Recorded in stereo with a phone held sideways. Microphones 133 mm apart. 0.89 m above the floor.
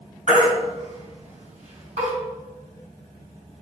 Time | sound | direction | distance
0.3 | a baby crying | 60° right (ahead or behind) | 4.5 m